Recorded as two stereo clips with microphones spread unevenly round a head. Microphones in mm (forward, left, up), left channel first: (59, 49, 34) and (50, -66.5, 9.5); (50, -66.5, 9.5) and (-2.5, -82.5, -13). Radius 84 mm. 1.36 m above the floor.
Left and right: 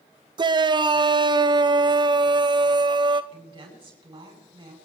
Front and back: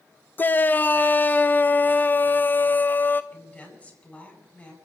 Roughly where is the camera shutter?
I don't hear a camera shutter.